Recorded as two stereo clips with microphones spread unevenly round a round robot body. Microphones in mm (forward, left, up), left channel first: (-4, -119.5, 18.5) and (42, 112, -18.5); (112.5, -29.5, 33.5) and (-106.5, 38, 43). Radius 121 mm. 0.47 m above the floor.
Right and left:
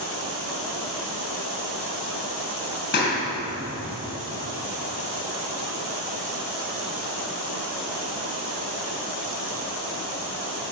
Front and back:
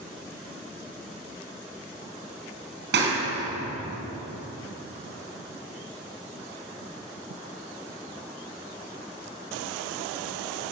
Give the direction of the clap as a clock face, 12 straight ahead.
5 o'clock.